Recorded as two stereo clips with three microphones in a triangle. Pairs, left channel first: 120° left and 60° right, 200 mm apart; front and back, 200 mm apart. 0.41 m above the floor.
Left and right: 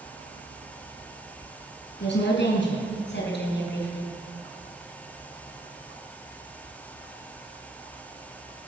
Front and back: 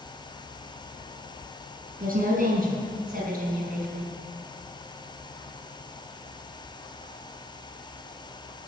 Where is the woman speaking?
135° left, 5 m.